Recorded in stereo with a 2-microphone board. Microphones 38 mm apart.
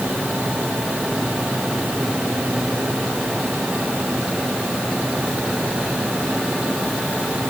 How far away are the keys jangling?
No keys jangling in this recording.